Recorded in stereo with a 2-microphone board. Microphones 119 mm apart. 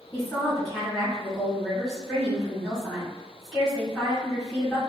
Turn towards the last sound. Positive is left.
turn(degrees=5)  # may be behind; listen again after turning